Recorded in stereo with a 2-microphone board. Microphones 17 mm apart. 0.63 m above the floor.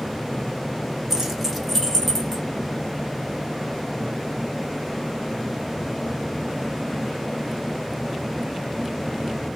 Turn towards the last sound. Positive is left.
turn(degrees=25)  # may be behind; listen again after turning